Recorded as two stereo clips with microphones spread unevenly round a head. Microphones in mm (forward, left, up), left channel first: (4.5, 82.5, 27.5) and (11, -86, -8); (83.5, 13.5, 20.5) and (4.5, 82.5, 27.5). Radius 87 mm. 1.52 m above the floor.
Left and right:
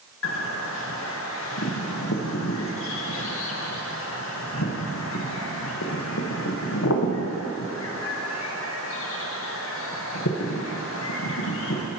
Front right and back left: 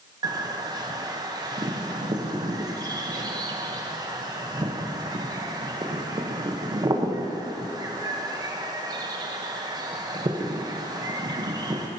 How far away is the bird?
About 1.0 m.